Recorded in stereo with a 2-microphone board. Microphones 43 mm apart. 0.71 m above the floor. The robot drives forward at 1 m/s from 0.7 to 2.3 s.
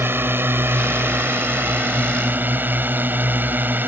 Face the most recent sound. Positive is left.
turn(degrees=-45)  # may be behind; listen again after turning